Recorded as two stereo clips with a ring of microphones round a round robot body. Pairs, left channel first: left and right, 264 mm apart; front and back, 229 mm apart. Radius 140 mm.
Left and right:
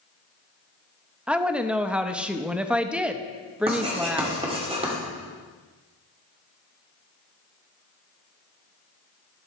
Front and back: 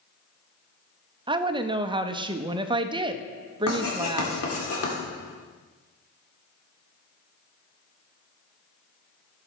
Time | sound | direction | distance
1.3 | a woman speaking | 170° right | 0.6 m
3.7 | writing | 20° right | 2 m